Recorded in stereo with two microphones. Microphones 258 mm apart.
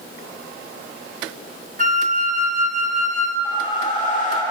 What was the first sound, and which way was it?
A flute, 35° right (ahead or behind).